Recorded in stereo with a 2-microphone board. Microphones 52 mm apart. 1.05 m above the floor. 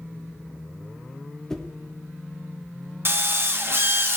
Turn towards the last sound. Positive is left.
turn(degrees=-45)  # may be behind; listen again after turning